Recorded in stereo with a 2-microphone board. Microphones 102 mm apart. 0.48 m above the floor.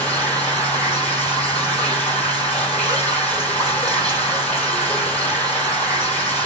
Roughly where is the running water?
Centre.